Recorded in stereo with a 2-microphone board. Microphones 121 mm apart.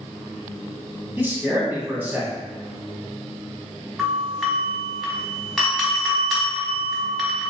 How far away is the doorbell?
About 1.6 m.